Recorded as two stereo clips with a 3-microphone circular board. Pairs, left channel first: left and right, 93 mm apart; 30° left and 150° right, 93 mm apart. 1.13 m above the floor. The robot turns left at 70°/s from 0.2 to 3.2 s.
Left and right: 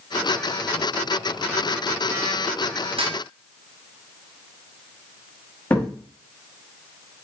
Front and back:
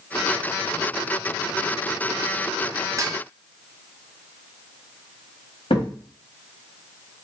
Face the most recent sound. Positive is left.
turn(degrees=20)